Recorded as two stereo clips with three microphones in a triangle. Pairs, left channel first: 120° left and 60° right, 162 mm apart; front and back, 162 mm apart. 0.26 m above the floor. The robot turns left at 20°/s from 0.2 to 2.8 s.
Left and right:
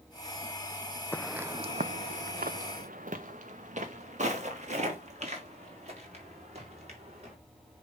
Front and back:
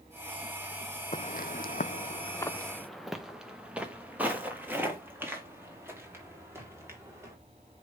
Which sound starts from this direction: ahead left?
Footsteps, at 1.1 s.